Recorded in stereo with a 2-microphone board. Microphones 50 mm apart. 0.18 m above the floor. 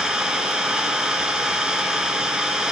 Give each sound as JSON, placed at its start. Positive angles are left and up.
{"t": 0.0, "sound": "an engine running", "side_deg": -15, "distance_m": 2.0}